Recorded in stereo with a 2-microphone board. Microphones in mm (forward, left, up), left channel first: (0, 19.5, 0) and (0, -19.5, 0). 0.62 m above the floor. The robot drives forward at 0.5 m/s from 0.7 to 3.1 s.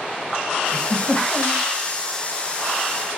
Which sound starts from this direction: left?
A giggle, at 0.7 s.